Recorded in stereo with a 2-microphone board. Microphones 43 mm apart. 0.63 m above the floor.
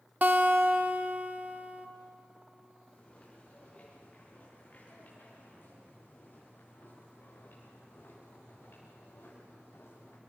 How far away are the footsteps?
About 9 m.